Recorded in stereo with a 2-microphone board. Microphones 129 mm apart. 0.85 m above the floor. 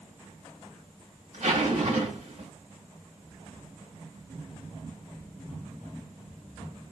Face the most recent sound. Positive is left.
turn(degrees=-75)  # may be behind; listen again after turning